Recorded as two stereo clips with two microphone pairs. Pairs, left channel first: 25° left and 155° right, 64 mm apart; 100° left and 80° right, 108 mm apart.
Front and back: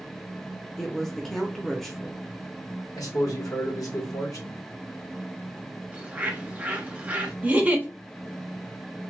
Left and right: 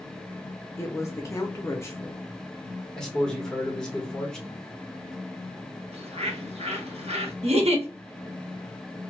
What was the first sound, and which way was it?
A woman speaking, 100° left.